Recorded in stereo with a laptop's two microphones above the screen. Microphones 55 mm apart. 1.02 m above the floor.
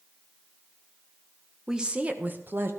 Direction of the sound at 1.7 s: 10° right (ahead or behind).